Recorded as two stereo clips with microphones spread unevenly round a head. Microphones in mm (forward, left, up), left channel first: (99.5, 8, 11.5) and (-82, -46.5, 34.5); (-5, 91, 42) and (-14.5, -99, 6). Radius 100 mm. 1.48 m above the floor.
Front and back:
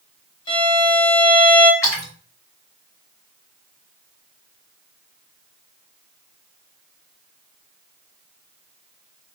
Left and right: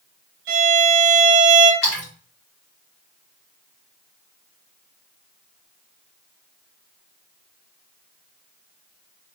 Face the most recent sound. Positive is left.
turn(degrees=95)